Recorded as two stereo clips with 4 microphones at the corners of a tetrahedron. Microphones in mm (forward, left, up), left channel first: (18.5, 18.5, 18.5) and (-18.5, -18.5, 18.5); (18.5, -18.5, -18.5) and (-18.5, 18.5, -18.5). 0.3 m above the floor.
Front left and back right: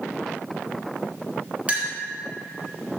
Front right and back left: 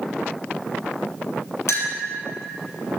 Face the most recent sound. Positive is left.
turn(degrees=-70)